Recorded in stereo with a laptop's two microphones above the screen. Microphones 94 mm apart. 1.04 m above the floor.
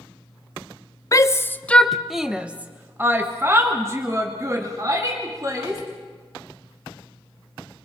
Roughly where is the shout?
Left.